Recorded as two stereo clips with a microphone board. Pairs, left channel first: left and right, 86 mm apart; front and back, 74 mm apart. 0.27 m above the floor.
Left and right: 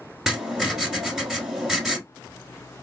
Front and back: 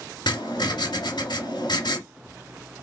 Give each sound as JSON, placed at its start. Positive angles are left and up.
{"t": 0.3, "sound": "writing", "azimuth_deg": -5, "distance_m": 1.3}